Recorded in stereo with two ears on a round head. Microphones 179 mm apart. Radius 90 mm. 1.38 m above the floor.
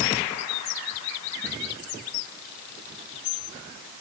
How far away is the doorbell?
No doorbell in this recording.